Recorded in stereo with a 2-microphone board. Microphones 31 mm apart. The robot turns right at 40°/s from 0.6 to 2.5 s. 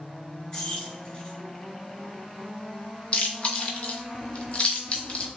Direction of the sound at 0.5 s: 20° left (ahead or behind).